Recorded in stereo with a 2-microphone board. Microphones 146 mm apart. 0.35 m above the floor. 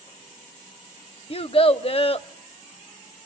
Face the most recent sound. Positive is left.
turn(degrees=40)  # may be behind; listen again after turning